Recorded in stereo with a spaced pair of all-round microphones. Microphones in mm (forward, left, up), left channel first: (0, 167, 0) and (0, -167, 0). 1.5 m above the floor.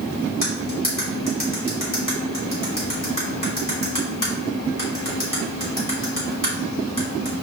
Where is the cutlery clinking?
70° left (ahead or behind), 3 m.